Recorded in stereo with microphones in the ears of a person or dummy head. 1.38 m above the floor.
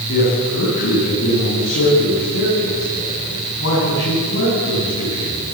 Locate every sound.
0.1 s a man speaking: 85° left, 10 m